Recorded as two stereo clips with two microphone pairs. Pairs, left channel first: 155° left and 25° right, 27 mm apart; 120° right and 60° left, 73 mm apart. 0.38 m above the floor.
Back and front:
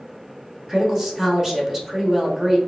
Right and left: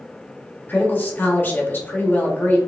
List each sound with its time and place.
0.7 s a woman speaking: 90° right, 0.9 m